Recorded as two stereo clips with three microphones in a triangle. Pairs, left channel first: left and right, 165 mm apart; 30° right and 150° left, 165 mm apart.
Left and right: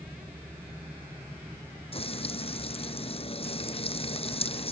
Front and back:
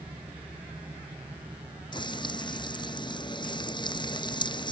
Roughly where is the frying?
Ahead left.